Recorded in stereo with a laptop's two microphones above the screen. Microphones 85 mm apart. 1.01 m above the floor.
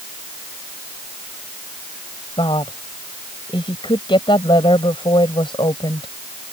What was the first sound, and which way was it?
A woman speaking, 80° left.